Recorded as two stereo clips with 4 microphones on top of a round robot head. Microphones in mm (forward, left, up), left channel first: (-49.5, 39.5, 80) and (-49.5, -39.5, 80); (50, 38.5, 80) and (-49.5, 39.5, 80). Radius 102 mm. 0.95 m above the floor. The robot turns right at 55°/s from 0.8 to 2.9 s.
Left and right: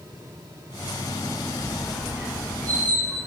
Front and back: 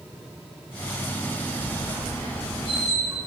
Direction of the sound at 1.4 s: 155° left.